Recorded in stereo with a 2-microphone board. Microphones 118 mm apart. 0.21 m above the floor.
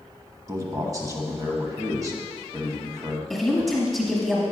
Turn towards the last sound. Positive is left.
turn(degrees=0)  # may be behind; listen again after turning